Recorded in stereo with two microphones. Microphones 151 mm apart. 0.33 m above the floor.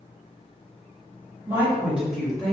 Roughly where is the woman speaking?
Centre.